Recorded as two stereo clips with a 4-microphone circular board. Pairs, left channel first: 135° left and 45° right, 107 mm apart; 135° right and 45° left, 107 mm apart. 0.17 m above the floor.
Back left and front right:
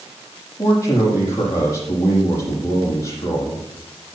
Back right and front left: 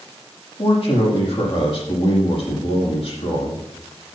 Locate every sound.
0.6 s a man speaking: 165° right, 6.5 m